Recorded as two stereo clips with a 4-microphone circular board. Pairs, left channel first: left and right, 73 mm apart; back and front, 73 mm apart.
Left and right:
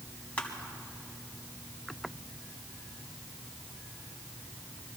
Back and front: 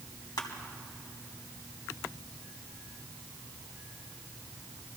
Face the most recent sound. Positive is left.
turn(degrees=160)